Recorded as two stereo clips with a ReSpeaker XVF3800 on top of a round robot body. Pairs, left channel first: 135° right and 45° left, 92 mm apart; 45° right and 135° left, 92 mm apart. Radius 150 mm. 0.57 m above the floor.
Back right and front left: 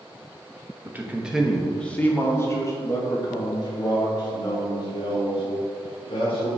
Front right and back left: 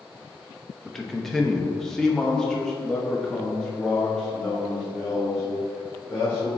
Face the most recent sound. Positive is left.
turn(degrees=-130)